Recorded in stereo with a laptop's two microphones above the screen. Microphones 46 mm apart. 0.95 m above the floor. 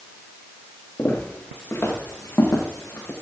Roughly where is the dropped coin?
I don't hear a dropped coin.